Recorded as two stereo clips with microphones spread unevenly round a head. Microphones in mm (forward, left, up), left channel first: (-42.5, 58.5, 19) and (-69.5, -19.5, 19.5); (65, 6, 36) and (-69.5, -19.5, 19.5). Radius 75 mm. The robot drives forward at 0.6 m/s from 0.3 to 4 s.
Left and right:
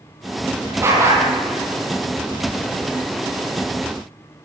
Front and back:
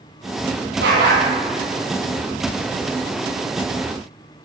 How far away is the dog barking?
About 8 m.